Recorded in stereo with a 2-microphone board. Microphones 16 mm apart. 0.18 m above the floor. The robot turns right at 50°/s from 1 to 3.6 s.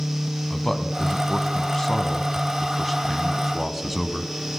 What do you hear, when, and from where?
0.5 s a man speaking: 25° left (ahead or behind), 1.0 m; by 4.3 s 10° right (ahead or behind), 1.0 m